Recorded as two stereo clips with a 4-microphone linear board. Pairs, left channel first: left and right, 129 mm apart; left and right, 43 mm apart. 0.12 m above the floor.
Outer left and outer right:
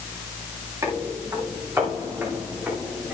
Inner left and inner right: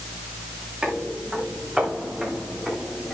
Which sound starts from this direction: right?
Footsteps, at 0.8 s.